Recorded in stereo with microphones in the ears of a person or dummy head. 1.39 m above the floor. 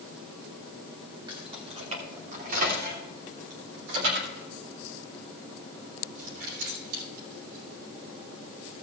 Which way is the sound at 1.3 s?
30° right (ahead or behind).